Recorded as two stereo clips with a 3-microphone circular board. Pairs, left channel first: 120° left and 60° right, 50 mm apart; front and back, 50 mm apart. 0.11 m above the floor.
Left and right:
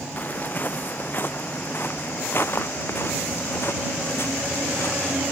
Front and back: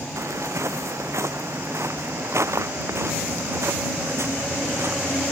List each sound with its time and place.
0.2 s footsteps: 175° left; by 5.2 s 155° left